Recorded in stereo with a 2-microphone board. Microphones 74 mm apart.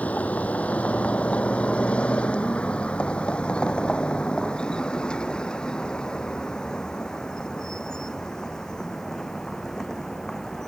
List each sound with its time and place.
0.0 s a vehicle: 20° left (ahead or behind); by 10.7 s 5° left (ahead or behind)